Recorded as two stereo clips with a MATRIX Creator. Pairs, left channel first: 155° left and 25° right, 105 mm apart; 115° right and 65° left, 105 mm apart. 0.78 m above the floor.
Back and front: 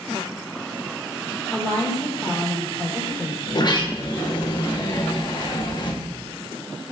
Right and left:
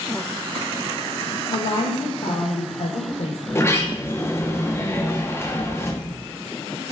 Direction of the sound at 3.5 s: 175° right.